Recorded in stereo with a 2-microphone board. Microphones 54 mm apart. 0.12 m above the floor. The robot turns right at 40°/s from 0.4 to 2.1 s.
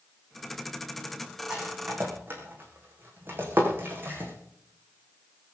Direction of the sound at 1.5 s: 15° right (ahead or behind).